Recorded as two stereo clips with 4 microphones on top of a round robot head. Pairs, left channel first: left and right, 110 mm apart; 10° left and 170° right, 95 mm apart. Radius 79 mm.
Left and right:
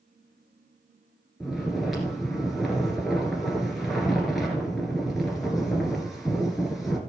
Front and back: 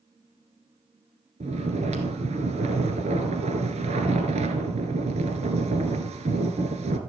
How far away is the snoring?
About 1.9 m.